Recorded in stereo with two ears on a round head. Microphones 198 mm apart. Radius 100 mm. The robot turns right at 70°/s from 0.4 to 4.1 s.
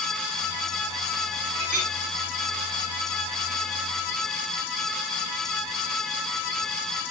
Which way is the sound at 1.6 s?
70° right (ahead or behind).